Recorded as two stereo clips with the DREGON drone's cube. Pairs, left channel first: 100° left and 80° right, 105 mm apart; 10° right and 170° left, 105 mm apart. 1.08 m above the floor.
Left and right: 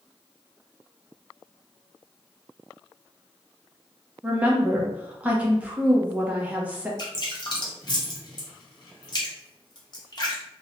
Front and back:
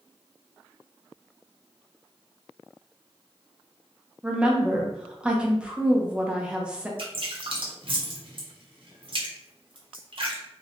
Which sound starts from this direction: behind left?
Dripping, at 7.0 s.